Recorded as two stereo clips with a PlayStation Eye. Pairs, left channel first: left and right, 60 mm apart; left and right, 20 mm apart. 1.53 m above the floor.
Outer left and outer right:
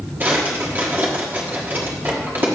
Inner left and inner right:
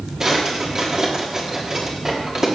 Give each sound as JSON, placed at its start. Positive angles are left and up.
{"t": 0.2, "sound": "a drawer", "side_deg": -30, "distance_m": 1.5}